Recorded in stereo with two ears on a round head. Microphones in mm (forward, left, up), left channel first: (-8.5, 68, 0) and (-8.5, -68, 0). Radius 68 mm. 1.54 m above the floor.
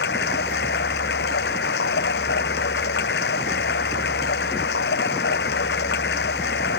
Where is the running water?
85° left.